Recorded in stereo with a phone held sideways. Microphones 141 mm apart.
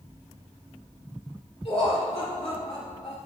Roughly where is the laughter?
Left.